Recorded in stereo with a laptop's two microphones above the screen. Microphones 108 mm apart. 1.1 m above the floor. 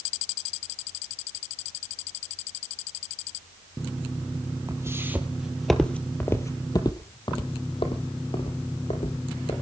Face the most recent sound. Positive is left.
turn(degrees=75)  # may be behind; listen again after turning